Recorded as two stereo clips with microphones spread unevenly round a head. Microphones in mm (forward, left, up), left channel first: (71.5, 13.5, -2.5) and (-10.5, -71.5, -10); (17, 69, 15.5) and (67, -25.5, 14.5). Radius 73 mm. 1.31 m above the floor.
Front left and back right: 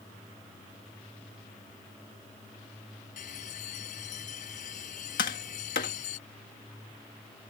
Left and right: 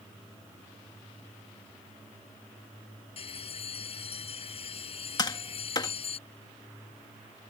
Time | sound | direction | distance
3.2 | a bell | 90° left | ?
5.2 | tapping | 65° left | ?